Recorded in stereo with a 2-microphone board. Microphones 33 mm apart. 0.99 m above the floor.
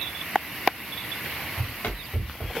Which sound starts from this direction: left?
Running footsteps, at 1.6 s.